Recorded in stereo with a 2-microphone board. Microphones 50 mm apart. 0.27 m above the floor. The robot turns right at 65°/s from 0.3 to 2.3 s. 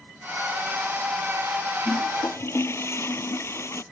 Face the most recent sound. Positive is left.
turn(degrees=65)  # may be behind; listen again after turning